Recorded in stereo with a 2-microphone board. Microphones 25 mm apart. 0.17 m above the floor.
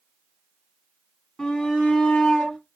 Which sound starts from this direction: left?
A shout, at 1.4 s.